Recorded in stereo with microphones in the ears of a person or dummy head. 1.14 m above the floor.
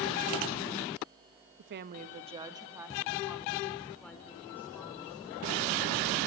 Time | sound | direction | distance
1.6 | a woman speaking | 60° right (ahead or behind) | 1.2 m